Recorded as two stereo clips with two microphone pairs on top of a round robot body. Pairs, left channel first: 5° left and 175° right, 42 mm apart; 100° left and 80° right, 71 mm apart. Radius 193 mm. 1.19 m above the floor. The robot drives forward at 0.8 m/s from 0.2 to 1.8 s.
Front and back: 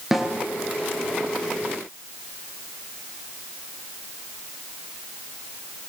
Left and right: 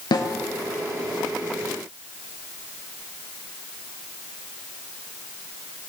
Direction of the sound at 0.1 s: 100° left.